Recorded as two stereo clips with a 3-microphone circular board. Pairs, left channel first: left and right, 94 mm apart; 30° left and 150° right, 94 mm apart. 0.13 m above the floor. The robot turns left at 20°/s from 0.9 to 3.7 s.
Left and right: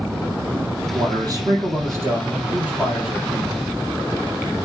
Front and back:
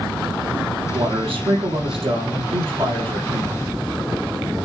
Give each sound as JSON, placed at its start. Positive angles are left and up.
{"t": 0.9, "sound": "a man speaking", "azimuth_deg": -130, "distance_m": 4.5}